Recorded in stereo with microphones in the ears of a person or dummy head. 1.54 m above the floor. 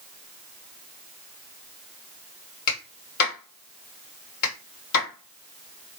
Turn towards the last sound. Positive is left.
turn(degrees=55)  # may be behind; listen again after turning